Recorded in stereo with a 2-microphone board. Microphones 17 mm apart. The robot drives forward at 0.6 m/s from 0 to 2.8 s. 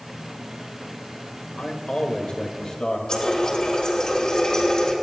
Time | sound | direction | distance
1.6 | a man speaking | 70° left (ahead or behind) | 1.5 m
3.1 | a running tap | 50° left (ahead or behind) | 3 m